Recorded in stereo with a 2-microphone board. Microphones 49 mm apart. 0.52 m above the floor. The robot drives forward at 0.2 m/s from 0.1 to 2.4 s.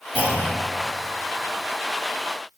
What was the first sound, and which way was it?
A clunk, 45° right (ahead or behind).